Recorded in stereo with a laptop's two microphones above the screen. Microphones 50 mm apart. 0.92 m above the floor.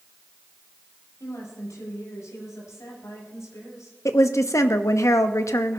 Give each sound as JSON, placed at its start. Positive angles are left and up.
{"t": 1.2, "sound": "a woman speaking", "side_deg": 75, "distance_m": 7.5}
{"t": 4.0, "sound": "a woman speaking", "side_deg": 70, "distance_m": 0.9}